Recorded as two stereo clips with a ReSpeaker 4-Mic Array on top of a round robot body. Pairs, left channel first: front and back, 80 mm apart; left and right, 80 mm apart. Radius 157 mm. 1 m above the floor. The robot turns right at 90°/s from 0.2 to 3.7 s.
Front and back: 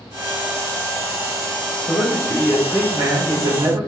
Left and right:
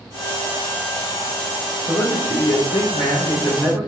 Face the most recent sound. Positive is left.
turn(degrees=-165)